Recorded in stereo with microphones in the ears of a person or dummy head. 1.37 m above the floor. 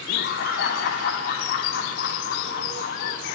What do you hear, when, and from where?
0.1 s laughter: 60° left (ahead or behind), 4.5 m